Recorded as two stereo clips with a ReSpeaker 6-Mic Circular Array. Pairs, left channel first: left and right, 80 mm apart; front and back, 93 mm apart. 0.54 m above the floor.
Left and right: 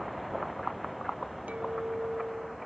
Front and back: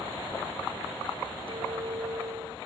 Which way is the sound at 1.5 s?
160° right.